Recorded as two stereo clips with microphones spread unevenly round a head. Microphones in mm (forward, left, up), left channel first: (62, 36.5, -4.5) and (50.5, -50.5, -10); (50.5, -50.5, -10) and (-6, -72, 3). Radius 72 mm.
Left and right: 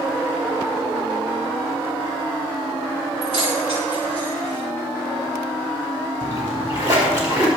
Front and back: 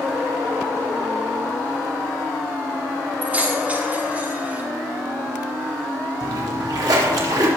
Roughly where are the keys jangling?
Right.